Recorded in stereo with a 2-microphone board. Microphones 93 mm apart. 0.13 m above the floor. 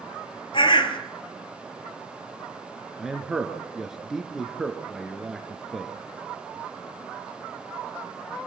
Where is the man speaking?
5° right (ahead or behind), 2.5 m.